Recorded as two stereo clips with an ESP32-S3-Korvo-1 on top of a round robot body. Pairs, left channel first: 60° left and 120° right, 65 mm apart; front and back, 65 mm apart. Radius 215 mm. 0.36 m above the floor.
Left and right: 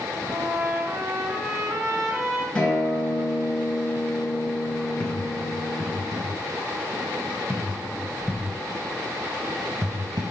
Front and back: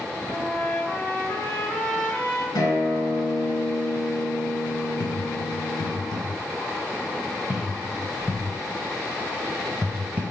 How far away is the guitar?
About 3.5 m.